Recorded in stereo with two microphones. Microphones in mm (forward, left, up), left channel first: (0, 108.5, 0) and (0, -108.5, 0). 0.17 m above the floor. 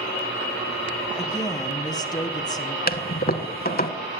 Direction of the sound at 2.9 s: 45° left (ahead or behind).